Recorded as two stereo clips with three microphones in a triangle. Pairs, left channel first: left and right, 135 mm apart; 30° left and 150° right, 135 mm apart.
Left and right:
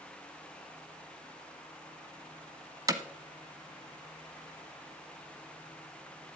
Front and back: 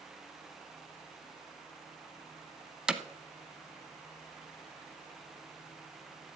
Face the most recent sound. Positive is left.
turn(degrees=-70)